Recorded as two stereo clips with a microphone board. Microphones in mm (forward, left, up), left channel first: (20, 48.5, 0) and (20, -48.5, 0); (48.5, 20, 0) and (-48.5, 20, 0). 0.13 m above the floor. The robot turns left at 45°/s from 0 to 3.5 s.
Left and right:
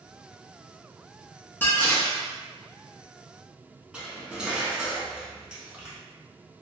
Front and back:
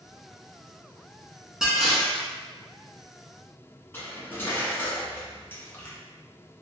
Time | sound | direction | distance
1.6 | dishes clattering | 105° left | 0.8 m
3.9 | cutlery clinking | 25° right | 0.6 m